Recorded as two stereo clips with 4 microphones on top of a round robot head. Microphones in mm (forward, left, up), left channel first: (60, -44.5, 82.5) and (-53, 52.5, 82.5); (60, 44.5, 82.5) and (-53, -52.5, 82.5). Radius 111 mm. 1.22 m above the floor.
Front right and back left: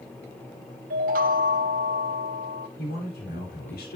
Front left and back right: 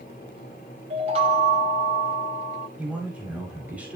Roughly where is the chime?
Behind.